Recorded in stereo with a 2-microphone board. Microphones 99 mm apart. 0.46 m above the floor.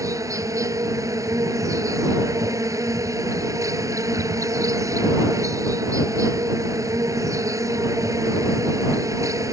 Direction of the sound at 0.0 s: 35° right (ahead or behind).